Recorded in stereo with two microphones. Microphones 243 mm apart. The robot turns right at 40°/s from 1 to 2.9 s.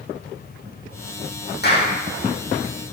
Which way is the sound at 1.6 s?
45° left (ahead or behind).